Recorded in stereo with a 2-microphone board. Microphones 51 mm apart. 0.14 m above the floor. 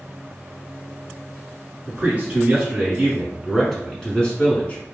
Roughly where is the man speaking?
Right.